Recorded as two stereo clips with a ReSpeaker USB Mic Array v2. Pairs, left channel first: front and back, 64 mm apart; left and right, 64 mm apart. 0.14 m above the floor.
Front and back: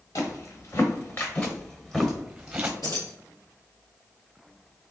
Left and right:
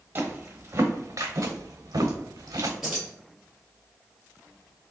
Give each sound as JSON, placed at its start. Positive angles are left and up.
{"t": 0.1, "sound": "footsteps", "azimuth_deg": -30, "distance_m": 1.2}
{"t": 2.8, "sound": "keys jangling", "azimuth_deg": -5, "distance_m": 1.9}